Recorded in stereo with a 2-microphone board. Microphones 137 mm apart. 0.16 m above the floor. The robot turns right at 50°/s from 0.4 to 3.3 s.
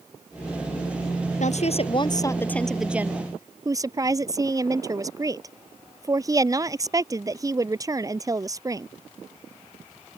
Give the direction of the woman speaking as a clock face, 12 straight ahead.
8 o'clock.